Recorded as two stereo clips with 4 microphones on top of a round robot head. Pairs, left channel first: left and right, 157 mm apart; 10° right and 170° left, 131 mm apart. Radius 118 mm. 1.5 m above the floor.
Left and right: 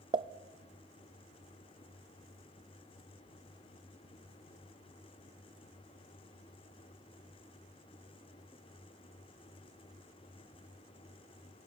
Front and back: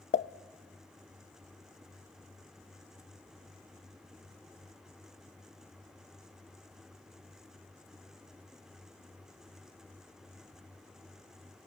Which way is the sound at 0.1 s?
30° right.